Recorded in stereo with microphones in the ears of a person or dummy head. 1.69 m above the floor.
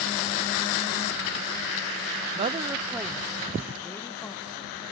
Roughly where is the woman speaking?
Right.